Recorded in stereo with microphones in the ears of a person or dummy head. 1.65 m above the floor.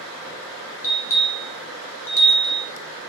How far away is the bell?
About 1.2 m.